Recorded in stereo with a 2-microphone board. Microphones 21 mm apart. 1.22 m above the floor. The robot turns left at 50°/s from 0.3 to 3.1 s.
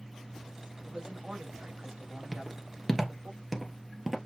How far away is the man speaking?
About 2.5 m.